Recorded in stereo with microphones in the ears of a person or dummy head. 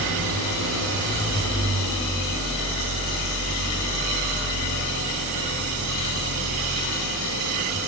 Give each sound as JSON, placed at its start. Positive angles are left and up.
{"t": 0.0, "sound": "an engine running", "side_deg": -80, "distance_m": 8.5}